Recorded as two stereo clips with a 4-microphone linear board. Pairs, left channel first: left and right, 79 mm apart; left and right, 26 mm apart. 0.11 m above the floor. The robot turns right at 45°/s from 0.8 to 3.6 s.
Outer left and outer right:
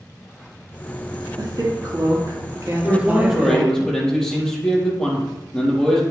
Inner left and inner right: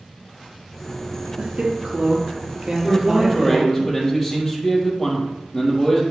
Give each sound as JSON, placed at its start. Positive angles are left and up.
{"t": 1.4, "sound": "a woman speaking", "azimuth_deg": -110, "distance_m": 3.0}
{"t": 2.8, "sound": "a man speaking", "azimuth_deg": -25, "distance_m": 3.5}